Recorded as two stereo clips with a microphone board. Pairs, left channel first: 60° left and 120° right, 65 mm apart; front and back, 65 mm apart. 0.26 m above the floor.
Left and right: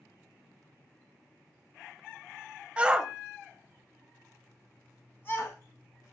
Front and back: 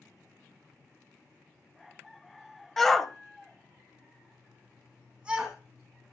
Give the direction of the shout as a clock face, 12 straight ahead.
3 o'clock.